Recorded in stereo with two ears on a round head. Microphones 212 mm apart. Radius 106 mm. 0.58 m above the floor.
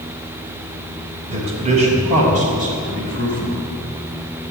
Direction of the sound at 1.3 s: 25° right (ahead or behind).